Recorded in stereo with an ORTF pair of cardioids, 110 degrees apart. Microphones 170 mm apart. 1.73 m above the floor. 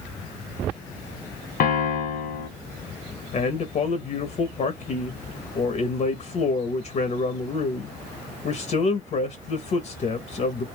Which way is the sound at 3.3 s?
45° left.